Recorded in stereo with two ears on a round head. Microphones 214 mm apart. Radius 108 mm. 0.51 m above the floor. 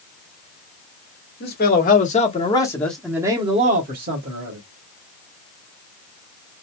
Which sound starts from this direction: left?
A man speaking, at 1.4 s.